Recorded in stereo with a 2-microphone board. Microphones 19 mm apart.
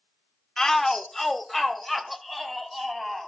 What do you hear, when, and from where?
0.6 s a shout: 20° left (ahead or behind), 0.9 m; by 3.3 s 10° right (ahead or behind), 3 m